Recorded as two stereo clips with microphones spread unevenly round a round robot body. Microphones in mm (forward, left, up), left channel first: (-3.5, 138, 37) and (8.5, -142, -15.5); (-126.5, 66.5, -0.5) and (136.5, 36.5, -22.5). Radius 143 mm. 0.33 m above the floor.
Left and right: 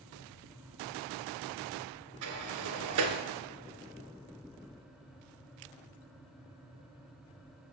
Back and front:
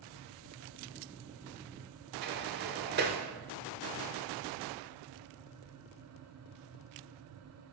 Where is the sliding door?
65° right, 1.5 m.